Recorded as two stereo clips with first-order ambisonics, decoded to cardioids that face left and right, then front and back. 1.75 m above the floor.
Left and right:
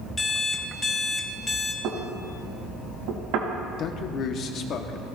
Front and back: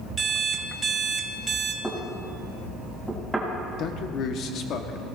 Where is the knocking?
90° right, 1.7 m.